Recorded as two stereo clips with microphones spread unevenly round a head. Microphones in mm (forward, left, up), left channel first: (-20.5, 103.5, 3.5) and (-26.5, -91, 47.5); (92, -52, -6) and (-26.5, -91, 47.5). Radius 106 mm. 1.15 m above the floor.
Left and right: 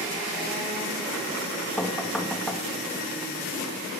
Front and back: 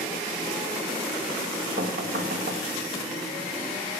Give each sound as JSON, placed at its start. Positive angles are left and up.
{"t": 1.8, "sound": "knocking", "azimuth_deg": 175, "distance_m": 1.2}